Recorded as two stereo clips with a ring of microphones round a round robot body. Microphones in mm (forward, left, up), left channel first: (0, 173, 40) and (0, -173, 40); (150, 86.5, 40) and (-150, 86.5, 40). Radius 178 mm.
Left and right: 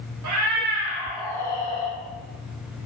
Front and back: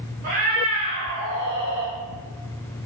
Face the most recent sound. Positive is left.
turn(degrees=155)